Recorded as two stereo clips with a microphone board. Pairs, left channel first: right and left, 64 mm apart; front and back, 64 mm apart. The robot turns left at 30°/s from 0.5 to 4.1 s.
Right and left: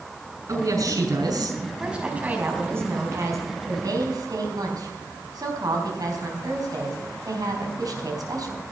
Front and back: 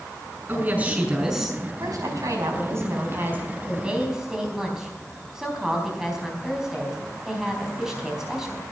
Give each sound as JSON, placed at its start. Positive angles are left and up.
{"t": 0.5, "sound": "a woman speaking", "azimuth_deg": 125, "distance_m": 5.5}
{"t": 1.8, "sound": "a woman speaking", "azimuth_deg": 170, "distance_m": 4.0}